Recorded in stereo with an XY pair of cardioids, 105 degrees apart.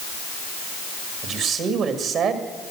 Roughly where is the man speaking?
Right.